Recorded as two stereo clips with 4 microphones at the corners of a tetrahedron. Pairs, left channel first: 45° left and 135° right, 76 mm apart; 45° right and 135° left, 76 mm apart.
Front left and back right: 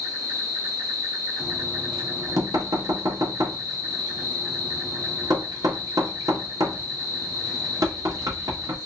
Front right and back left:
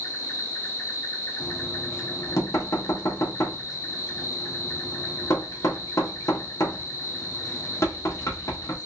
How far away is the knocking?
About 0.7 m.